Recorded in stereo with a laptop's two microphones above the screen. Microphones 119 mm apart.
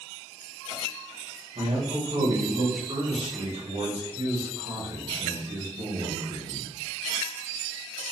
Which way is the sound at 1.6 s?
65° right (ahead or behind).